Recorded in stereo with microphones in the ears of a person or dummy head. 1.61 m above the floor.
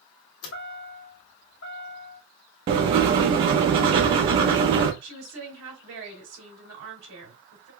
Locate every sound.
0.4 s a chime: 70° left (ahead or behind), 0.8 m
2.7 s writing: 30° right (ahead or behind), 0.6 m
5.0 s a woman speaking: 80° right, 3 m